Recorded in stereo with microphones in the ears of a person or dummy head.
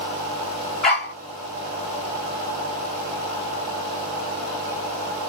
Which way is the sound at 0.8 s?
5° left (ahead or behind).